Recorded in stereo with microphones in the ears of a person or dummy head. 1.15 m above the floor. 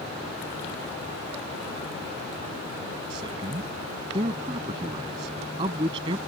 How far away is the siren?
No siren in this recording.